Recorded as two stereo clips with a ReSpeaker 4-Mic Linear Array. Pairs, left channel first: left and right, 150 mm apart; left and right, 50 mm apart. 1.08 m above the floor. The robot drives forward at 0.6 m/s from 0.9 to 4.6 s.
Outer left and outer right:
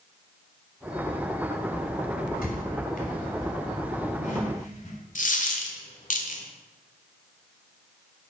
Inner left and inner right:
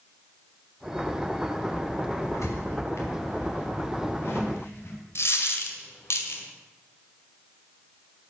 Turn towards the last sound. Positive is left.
turn(degrees=60)  # may be behind; listen again after turning